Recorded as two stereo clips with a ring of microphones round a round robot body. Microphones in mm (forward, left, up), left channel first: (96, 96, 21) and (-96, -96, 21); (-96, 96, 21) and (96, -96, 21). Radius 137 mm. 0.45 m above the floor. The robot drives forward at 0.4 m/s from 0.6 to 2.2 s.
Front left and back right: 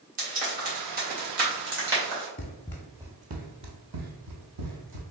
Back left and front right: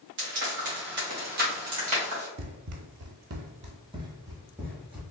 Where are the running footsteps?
10° right, 0.6 m; by 5.0 s 130° right, 1.2 m.